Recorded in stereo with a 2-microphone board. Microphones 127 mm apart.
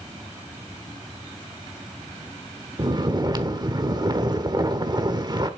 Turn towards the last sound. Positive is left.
turn(degrees=-35)  # may be behind; listen again after turning